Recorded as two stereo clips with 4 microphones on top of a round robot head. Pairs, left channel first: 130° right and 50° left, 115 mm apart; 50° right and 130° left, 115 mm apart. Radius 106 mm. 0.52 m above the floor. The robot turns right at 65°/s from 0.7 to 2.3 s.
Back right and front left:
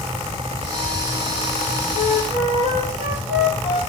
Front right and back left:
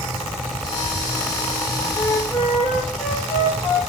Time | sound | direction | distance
1.9 | a flute | 20° left | 5 m